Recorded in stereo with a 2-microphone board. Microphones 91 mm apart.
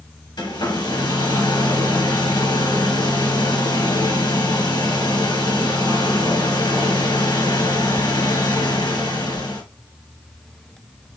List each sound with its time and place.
0.4 s a hair dryer: 55° left (ahead or behind), 2.5 m